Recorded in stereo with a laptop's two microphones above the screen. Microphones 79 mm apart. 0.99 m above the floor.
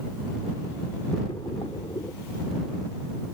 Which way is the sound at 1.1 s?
75° left (ahead or behind).